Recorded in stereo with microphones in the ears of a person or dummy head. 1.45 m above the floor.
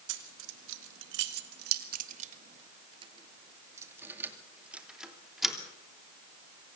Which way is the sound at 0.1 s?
75° right (ahead or behind).